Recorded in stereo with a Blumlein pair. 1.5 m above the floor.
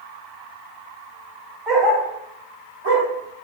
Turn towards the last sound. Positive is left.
turn(degrees=-55)